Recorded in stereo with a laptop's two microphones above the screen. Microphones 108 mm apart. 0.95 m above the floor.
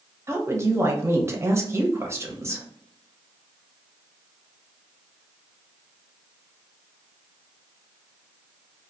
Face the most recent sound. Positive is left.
turn(degrees=-25)  # may be behind; listen again after turning